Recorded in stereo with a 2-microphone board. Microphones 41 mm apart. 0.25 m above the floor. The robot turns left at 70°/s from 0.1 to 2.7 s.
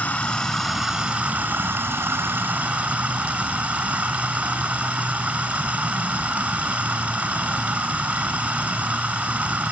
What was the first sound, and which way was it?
Running water, 35° left.